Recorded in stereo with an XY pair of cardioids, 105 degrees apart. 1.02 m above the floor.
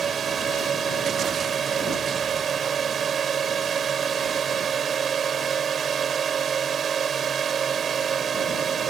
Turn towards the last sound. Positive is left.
turn(degrees=-45)